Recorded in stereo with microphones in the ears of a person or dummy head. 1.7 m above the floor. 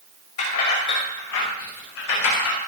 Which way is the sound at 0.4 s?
50° left (ahead or behind).